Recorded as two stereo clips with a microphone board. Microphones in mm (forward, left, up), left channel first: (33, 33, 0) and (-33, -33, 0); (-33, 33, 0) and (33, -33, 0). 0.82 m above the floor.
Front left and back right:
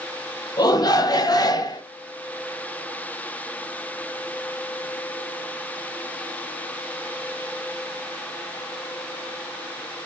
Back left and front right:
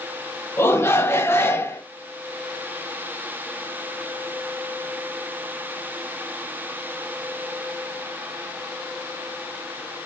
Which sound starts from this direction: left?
A shout, at 0.6 s.